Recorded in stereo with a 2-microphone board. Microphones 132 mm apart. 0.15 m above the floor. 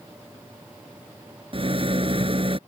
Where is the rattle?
45° right (ahead or behind).